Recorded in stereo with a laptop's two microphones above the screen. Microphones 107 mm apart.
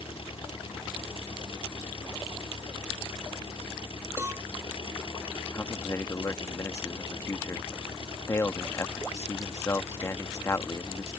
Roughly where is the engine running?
Left.